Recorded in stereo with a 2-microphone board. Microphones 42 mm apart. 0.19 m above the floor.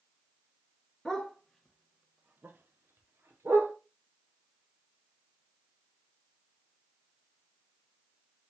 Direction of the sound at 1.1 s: 20° left (ahead or behind).